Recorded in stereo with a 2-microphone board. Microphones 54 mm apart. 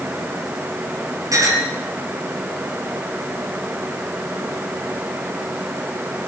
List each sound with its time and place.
1.3 s a clink: 85° right, 9 m